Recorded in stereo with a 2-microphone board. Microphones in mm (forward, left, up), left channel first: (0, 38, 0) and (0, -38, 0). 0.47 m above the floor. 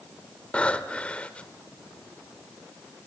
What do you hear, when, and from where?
0.5 s breathing: 15° left (ahead or behind), 1.4 m